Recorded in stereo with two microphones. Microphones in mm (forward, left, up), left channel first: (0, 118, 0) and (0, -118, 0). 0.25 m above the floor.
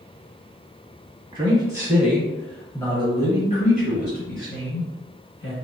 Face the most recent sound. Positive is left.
turn(degrees=60)  # may be behind; listen again after turning